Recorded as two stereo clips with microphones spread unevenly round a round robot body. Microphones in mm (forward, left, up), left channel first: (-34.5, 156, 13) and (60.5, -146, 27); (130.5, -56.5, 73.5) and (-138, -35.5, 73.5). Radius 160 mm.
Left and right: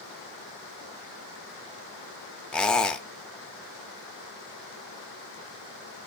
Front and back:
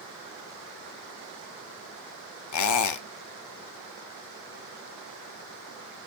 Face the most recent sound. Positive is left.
turn(degrees=20)